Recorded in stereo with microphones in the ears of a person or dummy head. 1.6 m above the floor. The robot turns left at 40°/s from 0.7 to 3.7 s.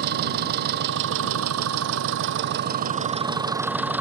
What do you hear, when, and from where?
0.0 s an engine running: 55° right; by 4.0 s 175° right